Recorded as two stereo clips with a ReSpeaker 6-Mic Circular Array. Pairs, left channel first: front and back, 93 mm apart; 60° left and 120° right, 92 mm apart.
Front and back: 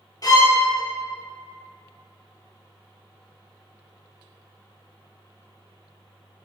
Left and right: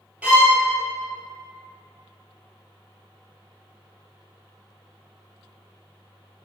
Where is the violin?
45° right, 0.9 m.